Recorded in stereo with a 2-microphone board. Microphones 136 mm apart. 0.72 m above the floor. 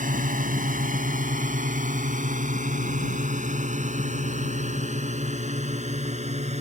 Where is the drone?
75° right (ahead or behind); by 6.6 s 55° right (ahead or behind).